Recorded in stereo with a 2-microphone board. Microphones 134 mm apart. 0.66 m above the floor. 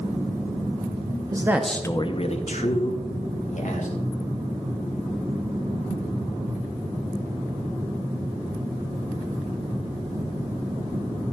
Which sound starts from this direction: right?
A man speaking, at 1.3 s.